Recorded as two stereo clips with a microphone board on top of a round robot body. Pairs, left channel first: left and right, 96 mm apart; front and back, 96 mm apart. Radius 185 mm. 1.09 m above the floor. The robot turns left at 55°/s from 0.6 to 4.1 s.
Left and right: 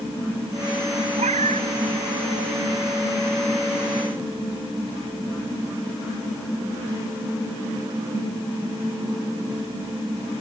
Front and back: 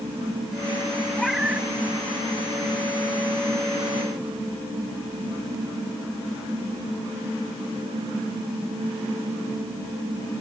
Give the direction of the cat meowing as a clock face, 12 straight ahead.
3 o'clock.